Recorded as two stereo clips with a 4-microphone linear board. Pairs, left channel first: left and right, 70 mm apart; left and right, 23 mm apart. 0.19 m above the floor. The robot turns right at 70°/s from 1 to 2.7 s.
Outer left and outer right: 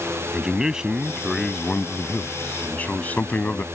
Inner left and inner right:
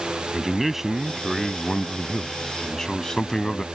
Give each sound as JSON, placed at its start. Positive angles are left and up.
{"t": 0.3, "sound": "a man speaking", "side_deg": -10}